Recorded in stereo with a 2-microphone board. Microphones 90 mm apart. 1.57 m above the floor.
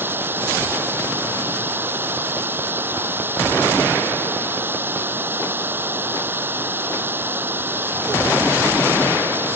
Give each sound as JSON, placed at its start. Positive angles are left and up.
{"t": 0.0, "sound": "running water", "side_deg": -25}